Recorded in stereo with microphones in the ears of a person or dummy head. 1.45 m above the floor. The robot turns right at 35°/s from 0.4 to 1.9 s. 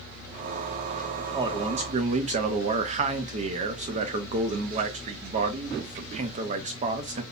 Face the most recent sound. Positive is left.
turn(degrees=-40)  # may be behind; listen again after turning